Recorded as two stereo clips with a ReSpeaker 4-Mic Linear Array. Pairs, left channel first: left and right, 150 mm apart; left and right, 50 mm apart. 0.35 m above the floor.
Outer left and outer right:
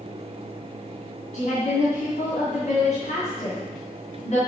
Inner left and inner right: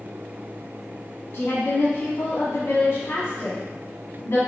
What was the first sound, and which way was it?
A woman speaking, 55° left (ahead or behind).